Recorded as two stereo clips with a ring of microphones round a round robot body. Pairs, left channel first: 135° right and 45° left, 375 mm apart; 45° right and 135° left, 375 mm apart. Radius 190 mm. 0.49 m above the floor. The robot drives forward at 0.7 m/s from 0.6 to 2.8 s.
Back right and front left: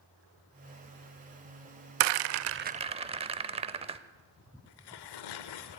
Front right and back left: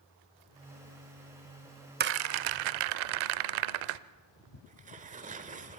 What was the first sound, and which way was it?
A rattle, 70° left.